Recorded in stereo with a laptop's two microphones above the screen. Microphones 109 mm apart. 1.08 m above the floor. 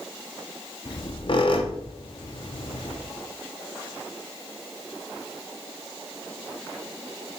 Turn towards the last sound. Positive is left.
turn(degrees=50)  # may be behind; listen again after turning